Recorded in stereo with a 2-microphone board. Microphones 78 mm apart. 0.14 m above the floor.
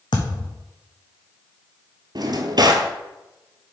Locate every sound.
0.1 s a thud: 85° left, 1.4 m
2.1 s a drawer: 65° right (ahead or behind), 0.8 m